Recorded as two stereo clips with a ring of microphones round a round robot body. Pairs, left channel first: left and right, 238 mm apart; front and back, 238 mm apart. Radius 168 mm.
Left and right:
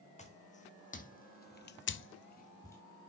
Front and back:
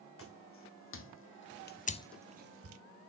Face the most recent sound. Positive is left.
turn(degrees=175)